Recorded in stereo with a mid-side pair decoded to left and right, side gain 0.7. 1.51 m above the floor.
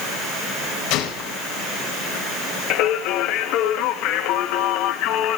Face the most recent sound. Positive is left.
turn(degrees=60)